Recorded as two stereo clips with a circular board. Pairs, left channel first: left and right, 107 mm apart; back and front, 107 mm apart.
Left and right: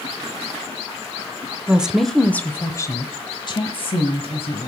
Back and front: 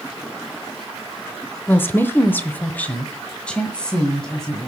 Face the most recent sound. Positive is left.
turn(degrees=95)